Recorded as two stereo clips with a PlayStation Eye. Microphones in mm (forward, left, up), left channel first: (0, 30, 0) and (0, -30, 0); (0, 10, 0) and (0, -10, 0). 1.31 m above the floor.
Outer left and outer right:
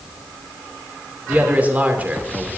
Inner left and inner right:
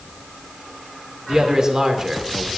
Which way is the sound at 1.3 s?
30° right (ahead or behind).